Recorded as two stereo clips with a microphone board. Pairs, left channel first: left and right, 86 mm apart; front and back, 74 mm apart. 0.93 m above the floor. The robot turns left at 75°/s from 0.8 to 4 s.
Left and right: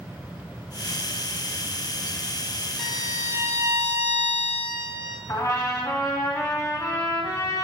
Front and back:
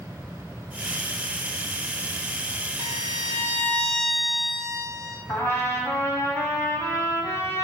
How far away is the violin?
About 1.4 m.